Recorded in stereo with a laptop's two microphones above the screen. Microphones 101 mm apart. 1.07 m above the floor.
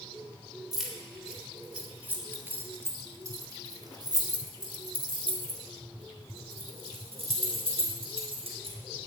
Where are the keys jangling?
Centre (ahead or behind), 3.5 m; by 9.1 s 80° right, 4.5 m.